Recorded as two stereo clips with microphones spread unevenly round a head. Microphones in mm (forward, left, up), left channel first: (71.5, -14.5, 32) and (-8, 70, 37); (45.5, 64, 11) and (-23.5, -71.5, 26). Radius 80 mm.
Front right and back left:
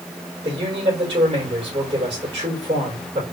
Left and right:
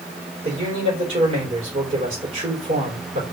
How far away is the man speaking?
About 4 m.